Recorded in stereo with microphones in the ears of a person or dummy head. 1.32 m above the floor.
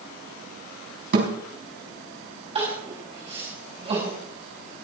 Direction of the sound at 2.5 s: 25° right (ahead or behind).